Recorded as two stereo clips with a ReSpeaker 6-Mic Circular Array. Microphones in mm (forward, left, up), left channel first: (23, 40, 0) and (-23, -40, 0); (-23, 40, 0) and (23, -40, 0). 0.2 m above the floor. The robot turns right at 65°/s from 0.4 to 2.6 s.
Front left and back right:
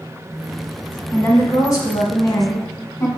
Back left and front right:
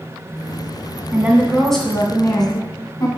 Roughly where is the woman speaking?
Ahead.